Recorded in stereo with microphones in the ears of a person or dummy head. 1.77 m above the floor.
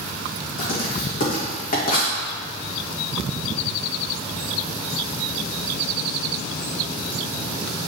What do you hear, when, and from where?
0.6 s writing: 50° left (ahead or behind), 2.0 m